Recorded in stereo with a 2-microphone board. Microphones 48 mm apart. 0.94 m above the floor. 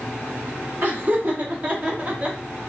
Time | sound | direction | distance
0.8 | laughter | 40° right (ahead or behind) | 2.0 m